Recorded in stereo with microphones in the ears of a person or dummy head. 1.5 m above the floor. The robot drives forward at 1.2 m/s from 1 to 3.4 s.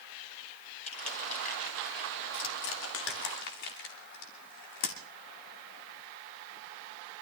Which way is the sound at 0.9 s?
40° left (ahead or behind).